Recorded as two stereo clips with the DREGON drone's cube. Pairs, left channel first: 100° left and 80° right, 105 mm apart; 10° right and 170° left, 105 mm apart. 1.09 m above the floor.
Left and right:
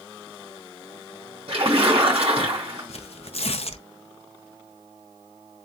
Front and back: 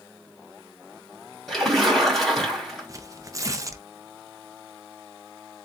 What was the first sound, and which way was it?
A splash, 100° right.